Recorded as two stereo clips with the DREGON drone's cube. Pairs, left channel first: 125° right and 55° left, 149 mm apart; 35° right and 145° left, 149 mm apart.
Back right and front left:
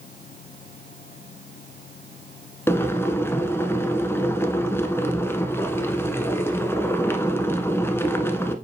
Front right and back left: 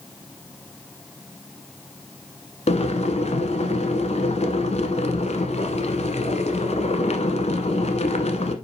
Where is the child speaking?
I don't hear a child speaking.